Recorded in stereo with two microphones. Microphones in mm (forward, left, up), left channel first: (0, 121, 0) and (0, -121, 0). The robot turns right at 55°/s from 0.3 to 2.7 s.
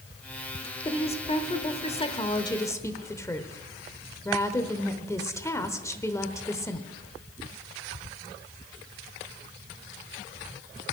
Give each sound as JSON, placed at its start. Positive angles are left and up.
{"t": 0.8, "sound": "a woman speaking", "side_deg": 20, "distance_m": 0.9}